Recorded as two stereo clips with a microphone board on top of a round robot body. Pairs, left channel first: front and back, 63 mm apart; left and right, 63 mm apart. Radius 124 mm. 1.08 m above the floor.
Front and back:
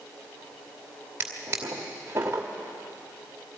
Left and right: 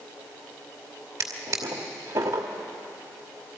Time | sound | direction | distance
1.2 | a drawer | 125° right | 1.1 m